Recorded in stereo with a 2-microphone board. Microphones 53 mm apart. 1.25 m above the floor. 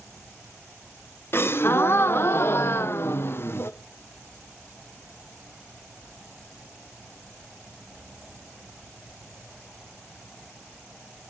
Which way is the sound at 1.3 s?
45° left (ahead or behind).